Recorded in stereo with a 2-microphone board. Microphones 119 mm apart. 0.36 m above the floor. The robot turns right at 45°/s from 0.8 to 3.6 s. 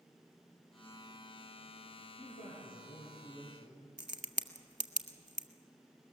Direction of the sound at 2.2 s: 90° left.